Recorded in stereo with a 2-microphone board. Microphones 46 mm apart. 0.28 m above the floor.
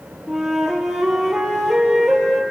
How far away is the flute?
About 3 m.